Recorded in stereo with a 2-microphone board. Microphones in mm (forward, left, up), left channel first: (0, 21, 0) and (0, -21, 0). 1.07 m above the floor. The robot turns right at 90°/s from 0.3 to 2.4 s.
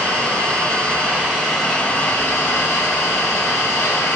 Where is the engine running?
110° right, 1.4 m; by 4.2 s 80° left, 1.4 m.